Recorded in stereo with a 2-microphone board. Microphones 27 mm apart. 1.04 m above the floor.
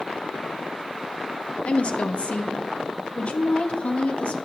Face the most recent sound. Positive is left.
turn(degrees=45)  # may be behind; listen again after turning